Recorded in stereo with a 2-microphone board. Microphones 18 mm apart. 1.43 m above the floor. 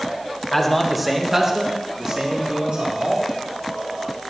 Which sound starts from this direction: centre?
A man speaking, at 0.5 s.